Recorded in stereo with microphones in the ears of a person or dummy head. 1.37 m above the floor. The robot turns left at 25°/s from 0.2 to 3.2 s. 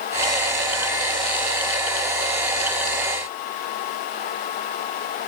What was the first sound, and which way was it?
Only background noise.